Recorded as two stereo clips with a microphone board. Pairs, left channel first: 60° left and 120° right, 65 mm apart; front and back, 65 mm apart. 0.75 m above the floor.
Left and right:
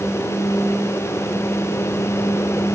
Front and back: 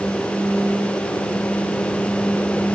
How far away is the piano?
No piano in this recording.